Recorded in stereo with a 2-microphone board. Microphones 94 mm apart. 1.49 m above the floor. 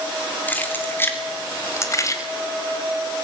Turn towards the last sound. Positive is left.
turn(degrees=35)  # may be behind; listen again after turning